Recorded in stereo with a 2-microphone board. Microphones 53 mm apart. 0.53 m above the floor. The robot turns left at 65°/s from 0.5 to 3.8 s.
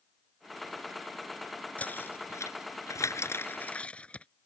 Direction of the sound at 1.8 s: 25° left (ahead or behind).